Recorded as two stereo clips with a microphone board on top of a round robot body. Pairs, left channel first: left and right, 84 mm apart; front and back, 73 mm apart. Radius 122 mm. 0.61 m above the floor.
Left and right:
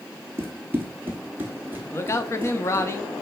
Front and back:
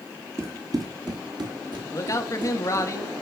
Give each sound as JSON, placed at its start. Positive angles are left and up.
{"t": 0.4, "sound": "running footsteps", "azimuth_deg": -145, "distance_m": 0.6}
{"t": 1.9, "sound": "a man speaking", "azimuth_deg": 40, "distance_m": 1.0}